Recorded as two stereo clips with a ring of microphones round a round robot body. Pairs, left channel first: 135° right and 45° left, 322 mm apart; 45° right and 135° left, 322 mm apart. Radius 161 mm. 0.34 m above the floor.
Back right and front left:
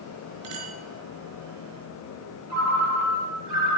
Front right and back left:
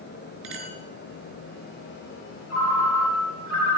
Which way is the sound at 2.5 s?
5° left.